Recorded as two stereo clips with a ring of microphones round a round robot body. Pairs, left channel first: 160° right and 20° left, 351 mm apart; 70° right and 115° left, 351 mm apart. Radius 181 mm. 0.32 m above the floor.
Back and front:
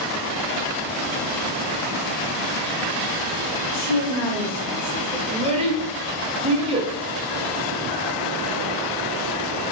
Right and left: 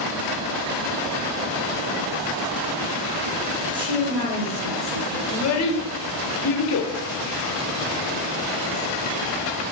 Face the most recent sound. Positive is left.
turn(degrees=-45)